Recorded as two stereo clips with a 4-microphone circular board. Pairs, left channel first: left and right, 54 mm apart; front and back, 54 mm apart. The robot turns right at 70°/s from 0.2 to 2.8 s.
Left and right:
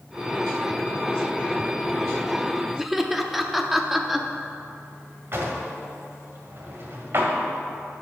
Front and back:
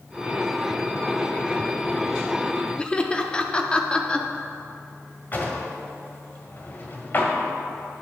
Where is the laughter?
10° right, 0.6 m.